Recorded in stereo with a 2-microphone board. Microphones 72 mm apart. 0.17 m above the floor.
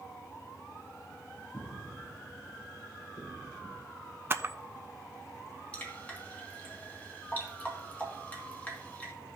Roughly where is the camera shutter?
Right.